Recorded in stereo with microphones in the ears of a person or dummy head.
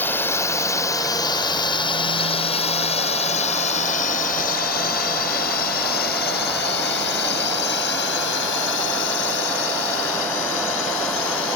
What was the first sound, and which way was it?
A drone, 10° left (ahead or behind).